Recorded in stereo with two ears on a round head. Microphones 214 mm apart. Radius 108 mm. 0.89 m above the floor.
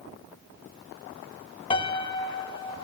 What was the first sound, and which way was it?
A piano, 20° left (ahead or behind).